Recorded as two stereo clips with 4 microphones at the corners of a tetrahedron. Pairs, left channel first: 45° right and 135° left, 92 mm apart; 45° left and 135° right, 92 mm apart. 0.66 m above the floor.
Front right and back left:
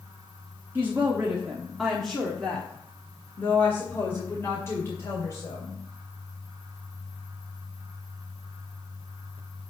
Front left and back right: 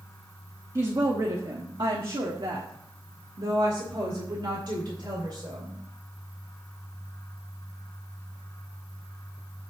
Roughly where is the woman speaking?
Behind.